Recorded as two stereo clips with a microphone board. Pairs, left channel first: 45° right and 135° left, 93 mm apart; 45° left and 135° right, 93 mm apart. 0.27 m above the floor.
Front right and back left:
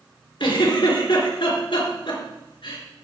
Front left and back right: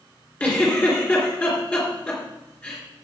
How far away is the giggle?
About 3.5 m.